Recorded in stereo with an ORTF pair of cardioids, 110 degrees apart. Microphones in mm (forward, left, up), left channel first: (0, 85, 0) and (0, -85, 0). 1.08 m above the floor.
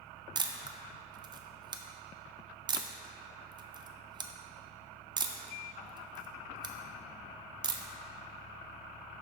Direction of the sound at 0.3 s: 25° right.